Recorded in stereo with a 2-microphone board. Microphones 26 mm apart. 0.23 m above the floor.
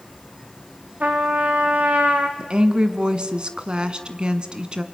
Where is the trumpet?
75° right (ahead or behind), 2.5 m.